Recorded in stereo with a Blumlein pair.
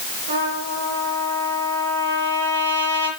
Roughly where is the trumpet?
Right.